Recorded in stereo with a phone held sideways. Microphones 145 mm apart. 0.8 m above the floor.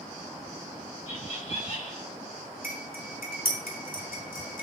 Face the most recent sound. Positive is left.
turn(degrees=85)